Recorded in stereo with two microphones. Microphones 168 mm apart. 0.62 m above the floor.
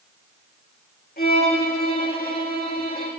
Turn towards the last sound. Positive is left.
turn(degrees=70)  # may be behind; listen again after turning